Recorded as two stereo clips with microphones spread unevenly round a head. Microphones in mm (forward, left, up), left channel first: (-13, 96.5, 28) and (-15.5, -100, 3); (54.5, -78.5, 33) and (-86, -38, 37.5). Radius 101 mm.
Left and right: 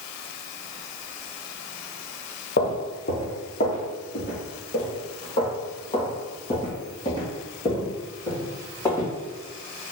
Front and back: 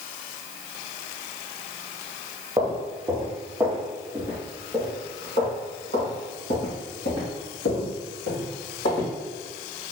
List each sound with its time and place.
2.6 s footsteps: 95° left, 1.4 m; by 9.1 s 15° left, 3.5 m